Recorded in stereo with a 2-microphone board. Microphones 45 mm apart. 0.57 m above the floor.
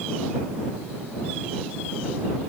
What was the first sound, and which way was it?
Only background noise.